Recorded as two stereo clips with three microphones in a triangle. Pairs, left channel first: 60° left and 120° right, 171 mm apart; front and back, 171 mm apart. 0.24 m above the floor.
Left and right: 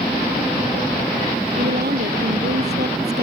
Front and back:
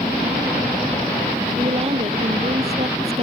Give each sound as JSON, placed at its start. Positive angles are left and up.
{"t": 1.6, "sound": "a woman speaking", "azimuth_deg": -130}